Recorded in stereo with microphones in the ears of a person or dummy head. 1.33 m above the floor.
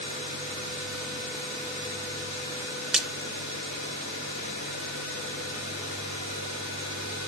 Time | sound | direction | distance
2.9 | a splash | centre (ahead or behind) | 1.4 m